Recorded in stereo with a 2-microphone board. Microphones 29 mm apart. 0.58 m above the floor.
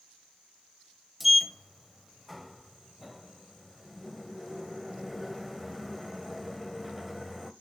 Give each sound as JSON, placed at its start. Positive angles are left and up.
{"t": 1.2, "sound": "a sliding door", "side_deg": -5, "distance_m": 0.7}